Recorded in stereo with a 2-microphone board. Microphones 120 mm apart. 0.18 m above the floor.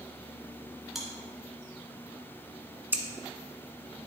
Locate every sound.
0.9 s chewing: centre (ahead or behind), 2.0 m
2.9 s scissors: 15° right (ahead or behind), 0.9 m